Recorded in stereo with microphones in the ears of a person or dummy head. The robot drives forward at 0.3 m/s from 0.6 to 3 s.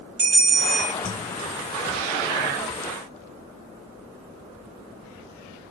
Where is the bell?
55° right (ahead or behind), 2 m.